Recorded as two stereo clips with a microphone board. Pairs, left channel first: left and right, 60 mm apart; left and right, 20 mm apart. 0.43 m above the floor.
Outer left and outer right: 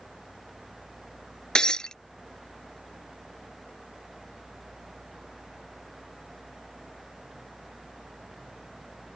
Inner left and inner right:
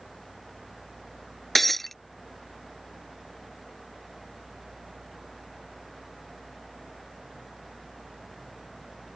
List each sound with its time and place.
1.6 s breaking glass: 15° left (ahead or behind)